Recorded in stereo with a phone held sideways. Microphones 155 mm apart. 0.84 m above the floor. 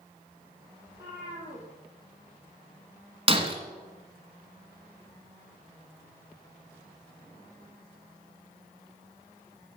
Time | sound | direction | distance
0.9 | a cat meowing | 85° right | 6.5 m
3.3 | breaking glass | 35° right (ahead or behind) | 1.8 m